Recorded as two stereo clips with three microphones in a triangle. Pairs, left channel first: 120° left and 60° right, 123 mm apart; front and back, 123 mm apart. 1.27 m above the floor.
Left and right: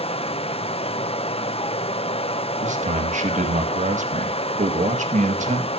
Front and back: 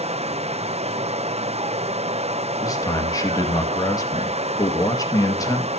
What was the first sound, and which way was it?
Running water, 155° left.